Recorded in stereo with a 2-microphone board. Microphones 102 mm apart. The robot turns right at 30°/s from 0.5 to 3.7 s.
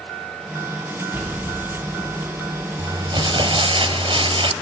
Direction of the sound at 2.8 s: 40° right (ahead or behind).